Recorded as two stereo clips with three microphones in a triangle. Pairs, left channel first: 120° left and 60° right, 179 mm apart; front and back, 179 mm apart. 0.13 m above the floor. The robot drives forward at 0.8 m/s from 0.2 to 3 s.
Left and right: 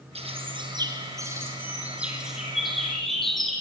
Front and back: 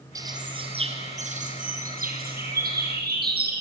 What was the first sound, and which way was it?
A bird, 110° right.